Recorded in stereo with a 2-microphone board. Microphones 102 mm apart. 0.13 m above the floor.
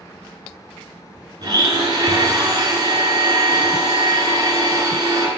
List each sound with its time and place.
1.4 s a blender: 40° right (ahead or behind), 1.4 m